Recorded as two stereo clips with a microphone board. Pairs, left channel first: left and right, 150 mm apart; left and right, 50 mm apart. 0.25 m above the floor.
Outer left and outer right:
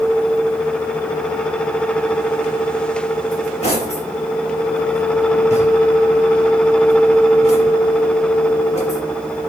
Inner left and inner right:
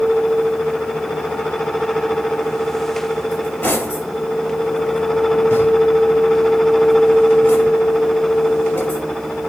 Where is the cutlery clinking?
45° left (ahead or behind), 3 m.